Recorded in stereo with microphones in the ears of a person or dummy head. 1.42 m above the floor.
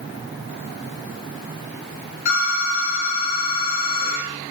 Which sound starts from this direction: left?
A phone ringing, at 2.2 s.